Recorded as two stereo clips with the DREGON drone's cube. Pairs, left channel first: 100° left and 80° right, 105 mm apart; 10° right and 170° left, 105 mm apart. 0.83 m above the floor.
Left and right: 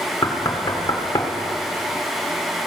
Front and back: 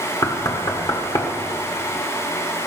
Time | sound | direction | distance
0.2 | knocking | 45° left | 1.6 m